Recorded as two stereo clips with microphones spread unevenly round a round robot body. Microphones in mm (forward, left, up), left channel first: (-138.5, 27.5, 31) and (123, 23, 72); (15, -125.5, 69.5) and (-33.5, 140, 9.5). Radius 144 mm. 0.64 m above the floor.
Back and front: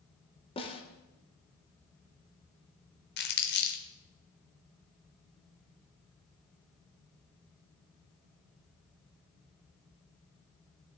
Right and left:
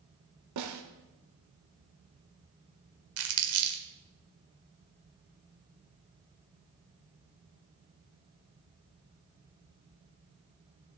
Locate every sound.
0.6 s a snare drum: 110° left, 1.3 m
3.2 s crumpling: 130° left, 1.4 m